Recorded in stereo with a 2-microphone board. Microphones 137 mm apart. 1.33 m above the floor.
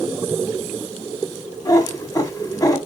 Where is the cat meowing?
30° left (ahead or behind), 1.1 m.